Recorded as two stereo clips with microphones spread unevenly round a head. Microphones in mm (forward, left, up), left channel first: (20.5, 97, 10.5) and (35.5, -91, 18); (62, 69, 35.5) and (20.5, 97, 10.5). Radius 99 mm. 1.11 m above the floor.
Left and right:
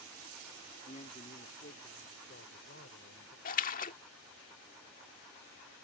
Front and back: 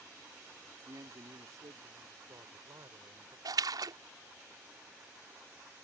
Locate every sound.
0.8 s a man speaking: 155° left; by 3.4 s 140° left
3.5 s a splash: 150° left